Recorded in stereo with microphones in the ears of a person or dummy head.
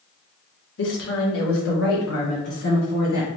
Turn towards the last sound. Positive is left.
turn(degrees=70)  # may be behind; listen again after turning